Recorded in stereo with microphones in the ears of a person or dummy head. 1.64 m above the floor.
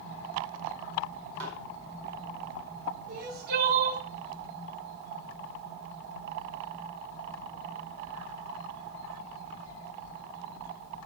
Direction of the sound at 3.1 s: 50° right (ahead or behind).